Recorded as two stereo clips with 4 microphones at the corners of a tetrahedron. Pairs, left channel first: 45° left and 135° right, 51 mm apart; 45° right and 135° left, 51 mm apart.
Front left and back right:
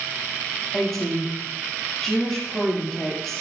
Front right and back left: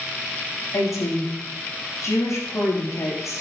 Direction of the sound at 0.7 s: 35° right.